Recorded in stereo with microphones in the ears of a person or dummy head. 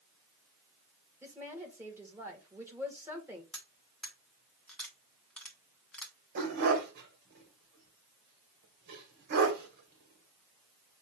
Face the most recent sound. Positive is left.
turn(degrees=-55)  # may be behind; listen again after turning